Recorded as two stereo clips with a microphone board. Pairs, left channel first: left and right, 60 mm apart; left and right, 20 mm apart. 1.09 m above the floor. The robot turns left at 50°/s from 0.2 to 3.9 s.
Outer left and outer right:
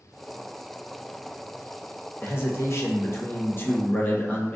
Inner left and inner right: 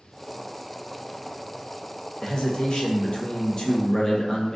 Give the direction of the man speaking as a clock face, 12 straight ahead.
8 o'clock.